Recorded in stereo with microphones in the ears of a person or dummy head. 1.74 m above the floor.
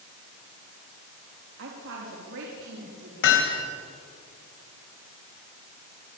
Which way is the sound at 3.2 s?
70° left (ahead or behind).